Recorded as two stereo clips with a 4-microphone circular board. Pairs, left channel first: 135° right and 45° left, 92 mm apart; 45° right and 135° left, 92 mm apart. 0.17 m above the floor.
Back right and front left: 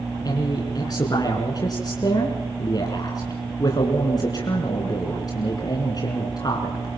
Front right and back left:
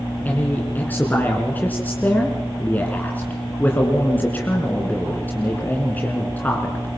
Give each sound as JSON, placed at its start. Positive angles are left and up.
{"t": 0.2, "sound": "a man speaking", "azimuth_deg": -110, "distance_m": 2.5}